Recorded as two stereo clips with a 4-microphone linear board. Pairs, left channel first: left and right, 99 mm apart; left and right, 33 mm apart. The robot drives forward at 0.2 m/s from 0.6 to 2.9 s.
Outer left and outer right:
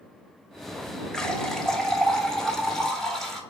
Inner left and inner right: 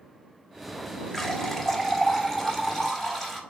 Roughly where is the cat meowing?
No cat meowing in this recording.